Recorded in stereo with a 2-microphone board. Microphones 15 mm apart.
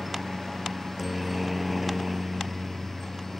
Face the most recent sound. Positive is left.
turn(degrees=5)  # may be behind; listen again after turning